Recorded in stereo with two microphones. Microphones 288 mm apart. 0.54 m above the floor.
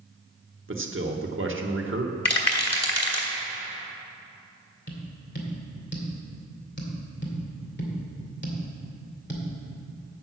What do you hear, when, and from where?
0.7 s a man speaking: 45° right (ahead or behind), 1.1 m
2.2 s a rattle: 60° left (ahead or behind), 1.8 m
4.9 s tapping: 40° left (ahead or behind), 2 m